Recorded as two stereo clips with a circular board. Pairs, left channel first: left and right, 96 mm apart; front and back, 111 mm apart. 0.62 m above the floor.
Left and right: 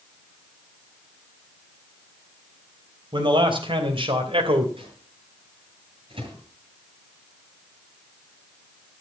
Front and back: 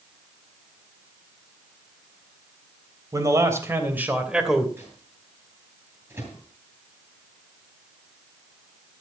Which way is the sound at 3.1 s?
125° right.